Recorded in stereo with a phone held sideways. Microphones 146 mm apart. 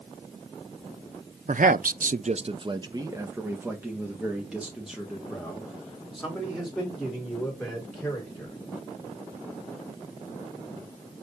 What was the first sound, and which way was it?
A man speaking, 60° right (ahead or behind).